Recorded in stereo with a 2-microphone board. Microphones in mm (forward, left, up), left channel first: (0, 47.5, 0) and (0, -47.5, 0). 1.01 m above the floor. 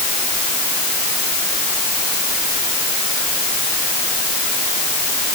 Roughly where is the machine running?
No machine running in this recording.